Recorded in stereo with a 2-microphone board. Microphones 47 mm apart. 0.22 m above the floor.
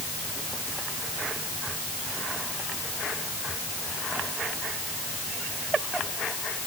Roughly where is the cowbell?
I don't hear a cowbell.